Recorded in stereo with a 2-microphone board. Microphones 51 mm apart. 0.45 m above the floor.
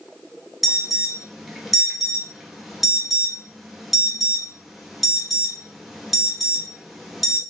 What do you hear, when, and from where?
0.6 s an alarm: 5° right (ahead or behind), 1.1 m